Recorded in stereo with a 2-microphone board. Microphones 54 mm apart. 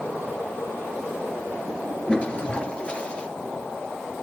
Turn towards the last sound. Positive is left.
turn(degrees=20)  # may be behind; listen again after turning